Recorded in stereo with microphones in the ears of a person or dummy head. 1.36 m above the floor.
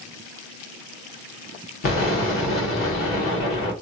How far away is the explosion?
About 1.1 m.